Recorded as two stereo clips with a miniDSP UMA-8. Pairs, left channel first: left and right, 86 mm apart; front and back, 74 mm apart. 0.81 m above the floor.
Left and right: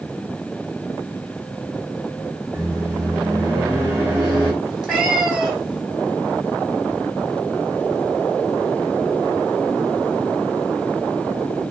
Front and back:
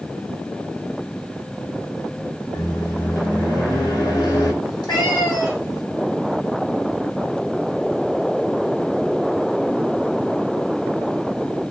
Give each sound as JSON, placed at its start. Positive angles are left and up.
{"t": 2.5, "sound": "a microwave", "azimuth_deg": -20, "distance_m": 1.4}
{"t": 4.6, "sound": "a cat meowing", "azimuth_deg": -5, "distance_m": 1.9}